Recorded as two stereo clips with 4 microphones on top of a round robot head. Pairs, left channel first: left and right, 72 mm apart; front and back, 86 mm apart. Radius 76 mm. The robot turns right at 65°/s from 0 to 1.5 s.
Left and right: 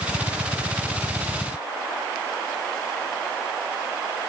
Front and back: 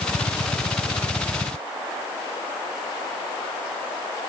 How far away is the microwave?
I don't hear a microwave.